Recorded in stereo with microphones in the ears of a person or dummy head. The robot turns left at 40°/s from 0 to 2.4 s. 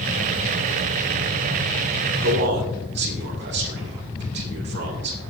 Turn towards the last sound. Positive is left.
turn(degrees=-60)  # may be behind; listen again after turning